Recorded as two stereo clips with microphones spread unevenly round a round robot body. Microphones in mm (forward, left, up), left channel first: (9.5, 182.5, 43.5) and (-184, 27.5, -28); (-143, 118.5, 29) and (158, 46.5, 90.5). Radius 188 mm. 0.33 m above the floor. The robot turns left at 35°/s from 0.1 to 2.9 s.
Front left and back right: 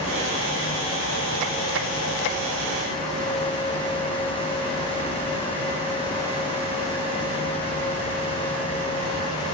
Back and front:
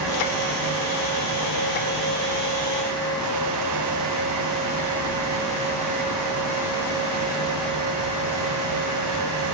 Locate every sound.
Only background noise.